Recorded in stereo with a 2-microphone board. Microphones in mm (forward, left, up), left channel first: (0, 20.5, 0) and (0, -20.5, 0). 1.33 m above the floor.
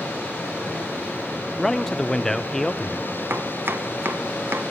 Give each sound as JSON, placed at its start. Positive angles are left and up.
{"t": 1.6, "sound": "a man speaking", "side_deg": 15, "distance_m": 0.6}
{"t": 3.3, "sound": "chopping", "side_deg": -75, "distance_m": 0.8}